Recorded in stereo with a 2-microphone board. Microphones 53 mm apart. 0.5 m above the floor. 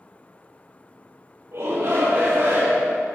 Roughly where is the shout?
Right.